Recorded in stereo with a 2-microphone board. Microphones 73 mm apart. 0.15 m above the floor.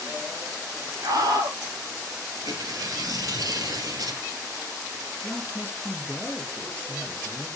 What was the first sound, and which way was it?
A scream, 60° right (ahead or behind).